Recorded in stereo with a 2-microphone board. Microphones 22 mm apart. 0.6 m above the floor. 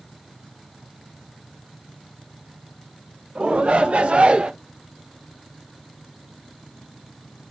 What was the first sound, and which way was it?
A shout, 75° right (ahead or behind).